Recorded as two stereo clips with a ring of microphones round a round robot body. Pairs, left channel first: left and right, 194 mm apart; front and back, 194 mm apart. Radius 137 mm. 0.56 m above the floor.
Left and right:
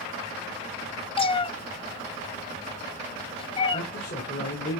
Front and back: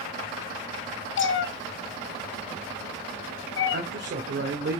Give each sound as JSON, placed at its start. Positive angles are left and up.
{"t": 1.2, "sound": "a cat meowing", "azimuth_deg": 25, "distance_m": 1.0}
{"t": 3.7, "sound": "a man speaking", "azimuth_deg": 155, "distance_m": 1.8}